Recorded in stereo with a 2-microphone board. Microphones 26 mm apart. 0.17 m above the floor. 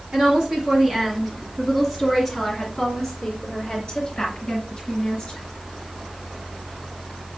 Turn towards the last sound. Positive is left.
turn(degrees=40)  # may be behind; listen again after turning